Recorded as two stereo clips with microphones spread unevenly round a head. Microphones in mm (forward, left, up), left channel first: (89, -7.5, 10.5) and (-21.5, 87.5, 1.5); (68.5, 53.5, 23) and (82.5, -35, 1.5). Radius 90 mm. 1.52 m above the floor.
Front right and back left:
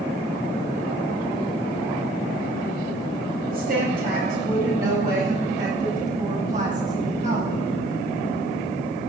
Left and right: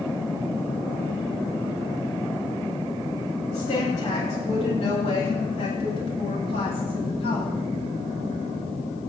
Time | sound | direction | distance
3.5 | a woman speaking | 120° left | 9 m